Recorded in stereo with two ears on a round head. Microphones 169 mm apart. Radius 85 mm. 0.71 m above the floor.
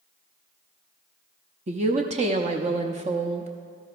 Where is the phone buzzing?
No phone buzzing in this recording.